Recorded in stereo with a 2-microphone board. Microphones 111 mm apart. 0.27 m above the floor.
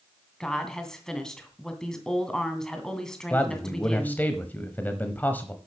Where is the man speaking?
15° left (ahead or behind), 1.2 m.